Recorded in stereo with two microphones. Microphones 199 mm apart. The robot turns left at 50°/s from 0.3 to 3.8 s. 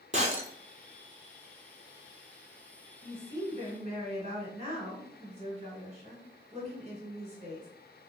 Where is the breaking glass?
35° right (ahead or behind), 0.6 m; by 0.5 s 45° right (ahead or behind), 0.6 m.